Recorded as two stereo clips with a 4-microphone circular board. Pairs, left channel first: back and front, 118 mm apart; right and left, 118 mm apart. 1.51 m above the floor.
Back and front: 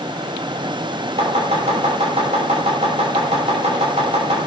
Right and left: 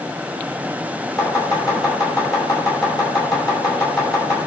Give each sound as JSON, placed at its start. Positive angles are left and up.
{"t": 1.2, "sound": "chopping", "azimuth_deg": -35, "distance_m": 5.5}